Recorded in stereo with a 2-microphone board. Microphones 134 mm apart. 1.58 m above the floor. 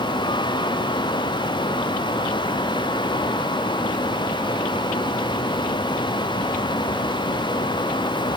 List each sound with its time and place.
Only background noise.